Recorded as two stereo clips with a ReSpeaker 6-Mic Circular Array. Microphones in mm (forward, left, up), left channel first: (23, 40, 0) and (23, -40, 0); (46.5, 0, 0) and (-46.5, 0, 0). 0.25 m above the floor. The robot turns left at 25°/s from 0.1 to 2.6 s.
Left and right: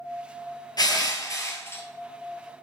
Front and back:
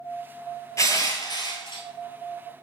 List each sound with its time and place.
0.8 s crushing: 55° left, 0.7 m; by 1.8 s 30° left, 0.7 m